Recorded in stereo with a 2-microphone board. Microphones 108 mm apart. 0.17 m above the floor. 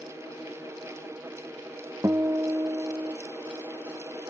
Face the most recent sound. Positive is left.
turn(degrees=-25)  # may be behind; listen again after turning